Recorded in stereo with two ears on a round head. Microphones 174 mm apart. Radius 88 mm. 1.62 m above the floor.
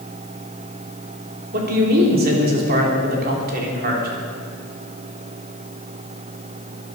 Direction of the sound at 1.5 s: 55° right (ahead or behind).